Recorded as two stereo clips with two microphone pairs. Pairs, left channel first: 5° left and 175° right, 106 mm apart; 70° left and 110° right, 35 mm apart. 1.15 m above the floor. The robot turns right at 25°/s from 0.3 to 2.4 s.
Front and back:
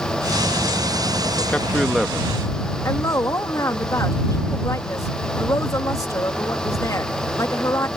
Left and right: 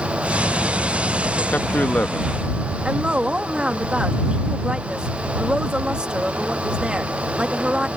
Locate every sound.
1.5 s a man speaking: 85° left; by 2.4 s 110° left
2.9 s a woman speaking: 50° right